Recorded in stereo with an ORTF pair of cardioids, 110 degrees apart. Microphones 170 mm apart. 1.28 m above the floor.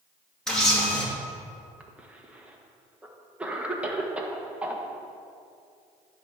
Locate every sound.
0.5 s a camera shutter: 5° left, 2.5 m
1.8 s a cough: 5° right, 1.3 m